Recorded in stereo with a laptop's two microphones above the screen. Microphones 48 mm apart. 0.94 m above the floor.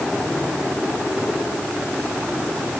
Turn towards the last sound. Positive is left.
No sound to turn to.